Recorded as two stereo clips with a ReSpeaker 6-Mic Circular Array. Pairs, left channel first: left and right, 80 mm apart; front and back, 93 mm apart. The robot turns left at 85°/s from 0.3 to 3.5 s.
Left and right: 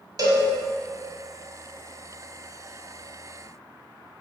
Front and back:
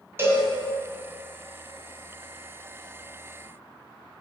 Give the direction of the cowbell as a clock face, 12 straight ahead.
4 o'clock.